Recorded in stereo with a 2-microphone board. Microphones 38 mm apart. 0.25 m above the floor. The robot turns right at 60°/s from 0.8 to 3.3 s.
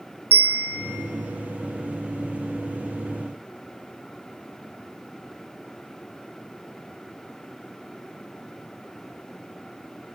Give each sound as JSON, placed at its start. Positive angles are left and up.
{"t": 0.3, "sound": "a bell", "side_deg": -70, "distance_m": 0.6}